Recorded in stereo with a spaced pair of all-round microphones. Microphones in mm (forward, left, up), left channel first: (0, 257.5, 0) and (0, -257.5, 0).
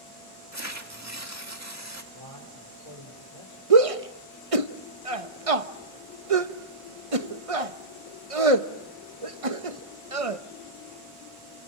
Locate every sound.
0.5 s tearing paper: 30° right (ahead or behind), 2 m
2.1 s a man speaking: 80° left, 5 m
3.7 s a shout: 75° right (ahead or behind), 1.4 m